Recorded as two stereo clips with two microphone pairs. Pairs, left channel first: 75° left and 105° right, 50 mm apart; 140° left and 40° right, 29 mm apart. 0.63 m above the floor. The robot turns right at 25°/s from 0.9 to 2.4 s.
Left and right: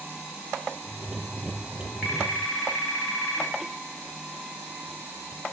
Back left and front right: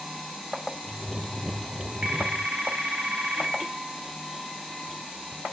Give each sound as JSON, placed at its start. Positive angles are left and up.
{"t": 2.0, "sound": "a phone ringing", "azimuth_deg": -30, "distance_m": 3.0}